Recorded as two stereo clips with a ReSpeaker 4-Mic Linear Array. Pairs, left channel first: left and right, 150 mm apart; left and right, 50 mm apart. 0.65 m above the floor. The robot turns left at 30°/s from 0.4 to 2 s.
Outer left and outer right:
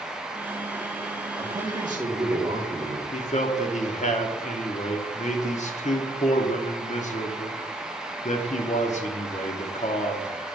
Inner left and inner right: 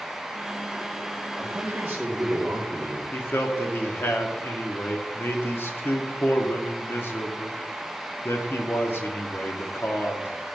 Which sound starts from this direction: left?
A man speaking, at 3.1 s.